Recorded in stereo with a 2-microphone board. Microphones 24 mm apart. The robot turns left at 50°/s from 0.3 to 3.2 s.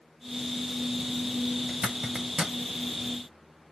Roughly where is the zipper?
Right.